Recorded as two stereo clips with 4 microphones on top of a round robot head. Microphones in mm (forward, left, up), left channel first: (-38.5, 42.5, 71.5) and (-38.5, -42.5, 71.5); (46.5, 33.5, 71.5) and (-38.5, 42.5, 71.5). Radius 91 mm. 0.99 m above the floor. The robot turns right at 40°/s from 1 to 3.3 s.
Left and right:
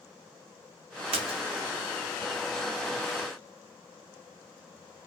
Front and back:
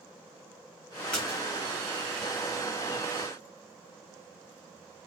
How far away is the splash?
About 1.0 m.